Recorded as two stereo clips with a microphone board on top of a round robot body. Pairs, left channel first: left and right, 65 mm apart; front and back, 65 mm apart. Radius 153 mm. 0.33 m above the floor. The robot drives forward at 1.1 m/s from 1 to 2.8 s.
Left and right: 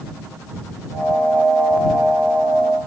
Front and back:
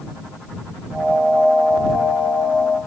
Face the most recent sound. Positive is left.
No sound to turn to.